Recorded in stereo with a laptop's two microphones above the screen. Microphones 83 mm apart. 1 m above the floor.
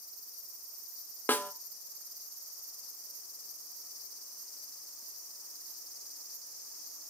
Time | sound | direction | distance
1.3 | a snare drum | 25° left (ahead or behind) | 0.7 m